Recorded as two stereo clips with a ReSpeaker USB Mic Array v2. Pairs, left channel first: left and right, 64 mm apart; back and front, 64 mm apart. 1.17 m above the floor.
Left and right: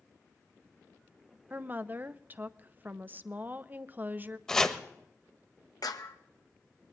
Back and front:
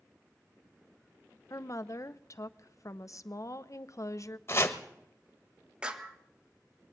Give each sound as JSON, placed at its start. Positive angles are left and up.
{"t": 1.5, "sound": "a woman speaking", "azimuth_deg": -150, "distance_m": 0.6}
{"t": 4.5, "sound": "chopping", "azimuth_deg": 165, "distance_m": 1.1}
{"t": 5.8, "sound": "a clap", "azimuth_deg": 75, "distance_m": 1.1}